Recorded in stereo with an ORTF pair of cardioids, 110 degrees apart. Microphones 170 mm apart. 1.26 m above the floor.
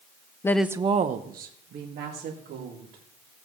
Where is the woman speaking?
20° left, 0.7 m; by 3.0 s 75° right, 3.5 m.